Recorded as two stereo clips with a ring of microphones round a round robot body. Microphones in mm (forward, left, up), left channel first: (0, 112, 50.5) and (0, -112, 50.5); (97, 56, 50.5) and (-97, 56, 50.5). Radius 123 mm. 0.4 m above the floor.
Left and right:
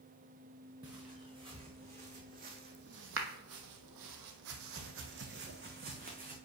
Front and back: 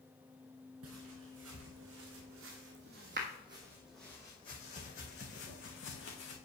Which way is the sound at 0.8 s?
165° right.